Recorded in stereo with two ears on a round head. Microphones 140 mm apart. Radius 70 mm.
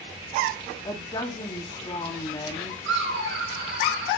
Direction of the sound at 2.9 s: 85° right.